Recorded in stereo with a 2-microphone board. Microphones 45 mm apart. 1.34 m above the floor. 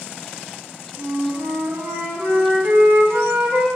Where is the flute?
60° right (ahead or behind), 4 m.